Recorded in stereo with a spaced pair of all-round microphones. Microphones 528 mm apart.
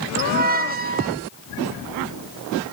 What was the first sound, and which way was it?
A squeak, 20° right (ahead or behind).